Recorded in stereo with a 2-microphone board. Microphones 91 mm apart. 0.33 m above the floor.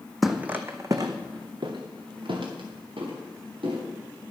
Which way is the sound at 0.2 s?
Centre (ahead or behind).